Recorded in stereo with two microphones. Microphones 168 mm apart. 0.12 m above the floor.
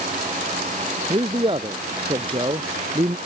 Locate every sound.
1.1 s a man speaking: 30° right (ahead or behind)